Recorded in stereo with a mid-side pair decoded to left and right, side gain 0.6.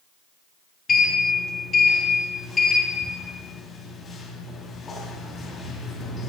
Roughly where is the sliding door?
Ahead left.